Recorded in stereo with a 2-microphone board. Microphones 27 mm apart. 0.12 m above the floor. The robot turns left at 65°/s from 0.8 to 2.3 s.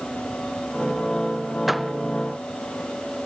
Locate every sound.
1.7 s a door slam: 10° right (ahead or behind); by 1.9 s 5° left (ahead or behind)